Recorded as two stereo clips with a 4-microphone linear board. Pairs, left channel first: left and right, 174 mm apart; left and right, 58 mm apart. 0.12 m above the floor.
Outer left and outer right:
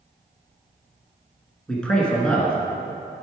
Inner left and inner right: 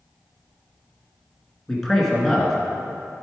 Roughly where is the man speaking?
Centre.